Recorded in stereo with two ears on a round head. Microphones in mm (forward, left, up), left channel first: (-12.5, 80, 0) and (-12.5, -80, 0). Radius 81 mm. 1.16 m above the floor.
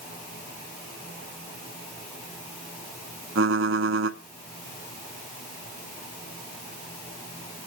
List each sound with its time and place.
3.4 s typing on a keyboard: 75° right (ahead or behind), 1.3 m